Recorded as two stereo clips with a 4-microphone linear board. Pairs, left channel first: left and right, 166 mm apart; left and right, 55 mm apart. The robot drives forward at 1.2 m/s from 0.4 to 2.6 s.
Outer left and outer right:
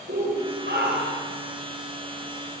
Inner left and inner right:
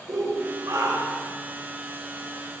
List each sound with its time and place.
0.1 s a shout: 85° right, 5 m